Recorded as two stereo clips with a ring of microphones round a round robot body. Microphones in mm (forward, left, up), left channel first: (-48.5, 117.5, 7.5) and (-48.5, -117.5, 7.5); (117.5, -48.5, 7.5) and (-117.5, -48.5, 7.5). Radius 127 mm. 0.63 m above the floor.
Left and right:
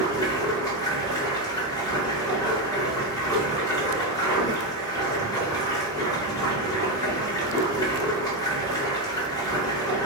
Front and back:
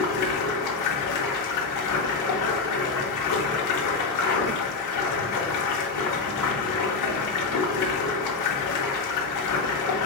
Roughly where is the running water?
Ahead.